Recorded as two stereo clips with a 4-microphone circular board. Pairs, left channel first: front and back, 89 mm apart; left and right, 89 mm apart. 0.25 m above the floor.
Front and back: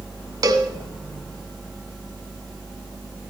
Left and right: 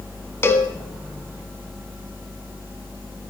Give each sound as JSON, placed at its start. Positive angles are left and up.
{"t": 0.4, "sound": "a cowbell", "azimuth_deg": 145, "distance_m": 1.2}